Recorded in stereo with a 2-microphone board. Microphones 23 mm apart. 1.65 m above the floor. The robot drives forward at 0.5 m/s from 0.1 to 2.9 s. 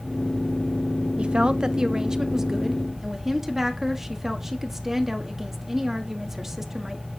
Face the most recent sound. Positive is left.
turn(degrees=-25)  # may be behind; listen again after turning